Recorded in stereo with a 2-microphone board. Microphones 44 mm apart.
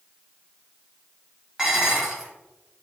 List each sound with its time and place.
1.6 s dishes clattering: 10° right (ahead or behind), 1.3 m